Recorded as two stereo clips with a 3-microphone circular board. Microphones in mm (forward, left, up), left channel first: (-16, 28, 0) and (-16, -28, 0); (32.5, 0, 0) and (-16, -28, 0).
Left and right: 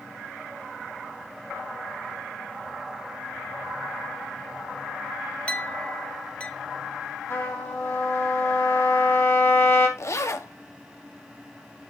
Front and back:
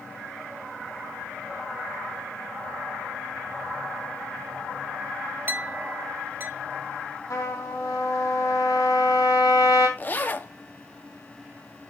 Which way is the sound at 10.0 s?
80° left.